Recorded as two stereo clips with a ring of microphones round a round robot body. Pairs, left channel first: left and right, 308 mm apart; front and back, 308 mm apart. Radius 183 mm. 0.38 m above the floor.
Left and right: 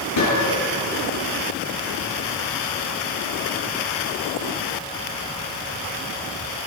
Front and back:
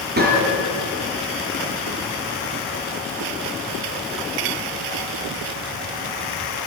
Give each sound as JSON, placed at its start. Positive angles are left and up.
{"t": 0.2, "sound": "a gunshot", "azimuth_deg": 125, "distance_m": 6.0}